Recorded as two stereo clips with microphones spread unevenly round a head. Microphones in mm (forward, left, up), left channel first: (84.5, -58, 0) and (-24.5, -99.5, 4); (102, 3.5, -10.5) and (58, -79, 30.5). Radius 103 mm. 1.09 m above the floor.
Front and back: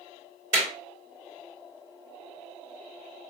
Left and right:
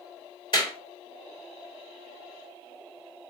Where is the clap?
125° left, 2.5 m.